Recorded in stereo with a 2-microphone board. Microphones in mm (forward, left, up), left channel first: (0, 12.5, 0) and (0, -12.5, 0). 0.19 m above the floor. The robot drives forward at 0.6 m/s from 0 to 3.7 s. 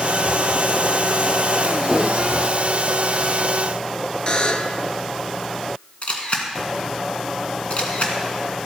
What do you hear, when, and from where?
4.3 s a buzzer: 40° left (ahead or behind), 0.8 m
6.0 s a camera shutter: 50° left (ahead or behind), 1.7 m